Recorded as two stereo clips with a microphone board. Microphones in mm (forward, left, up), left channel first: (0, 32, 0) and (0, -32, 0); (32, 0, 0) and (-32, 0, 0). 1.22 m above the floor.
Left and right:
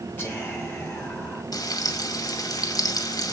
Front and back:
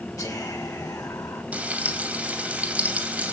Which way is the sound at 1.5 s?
110° left.